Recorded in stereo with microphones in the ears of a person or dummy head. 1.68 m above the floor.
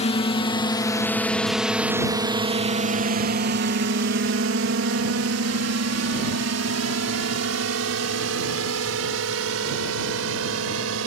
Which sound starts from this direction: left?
A drone, at 0.0 s.